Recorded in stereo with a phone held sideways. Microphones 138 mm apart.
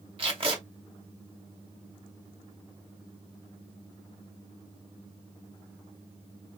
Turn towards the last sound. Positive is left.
turn(degrees=-40)  # may be behind; listen again after turning